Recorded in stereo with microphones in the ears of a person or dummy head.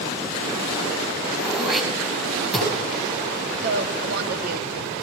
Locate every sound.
1.4 s throat clearing: 5° right (ahead or behind), 5 m
3.6 s a woman speaking: 60° right (ahead or behind), 2.5 m